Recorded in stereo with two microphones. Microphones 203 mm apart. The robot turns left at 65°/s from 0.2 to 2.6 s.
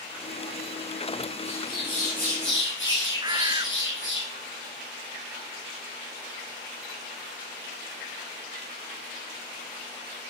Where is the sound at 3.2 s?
20° right (ahead or behind), 0.9 m.